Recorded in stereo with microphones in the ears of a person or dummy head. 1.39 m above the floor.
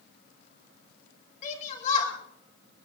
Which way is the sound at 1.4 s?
45° left (ahead or behind).